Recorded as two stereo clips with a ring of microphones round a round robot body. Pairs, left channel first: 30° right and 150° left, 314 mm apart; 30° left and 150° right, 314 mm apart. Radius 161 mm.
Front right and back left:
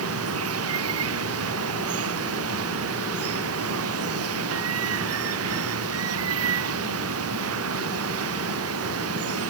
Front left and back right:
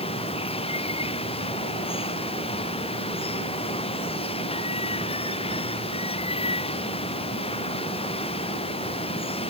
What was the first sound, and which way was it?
Running water, 105° left.